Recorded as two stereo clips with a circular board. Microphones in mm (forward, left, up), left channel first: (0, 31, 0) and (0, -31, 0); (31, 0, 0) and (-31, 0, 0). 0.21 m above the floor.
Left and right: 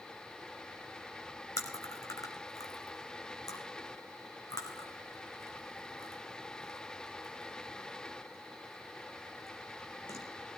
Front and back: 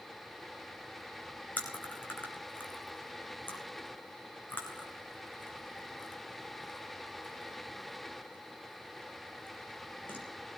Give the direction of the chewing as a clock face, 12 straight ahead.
10 o'clock.